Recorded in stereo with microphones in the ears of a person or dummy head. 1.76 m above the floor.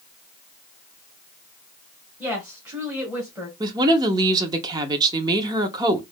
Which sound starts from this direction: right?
A woman speaking, at 3.6 s.